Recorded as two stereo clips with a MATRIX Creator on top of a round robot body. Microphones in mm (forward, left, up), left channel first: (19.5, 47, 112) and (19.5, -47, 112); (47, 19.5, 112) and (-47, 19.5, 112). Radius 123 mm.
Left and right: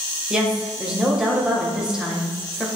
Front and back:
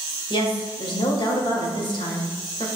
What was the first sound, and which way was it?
A woman speaking, 10° right.